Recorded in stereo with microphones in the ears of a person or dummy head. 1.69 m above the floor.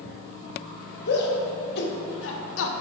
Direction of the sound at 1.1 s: 60° left (ahead or behind).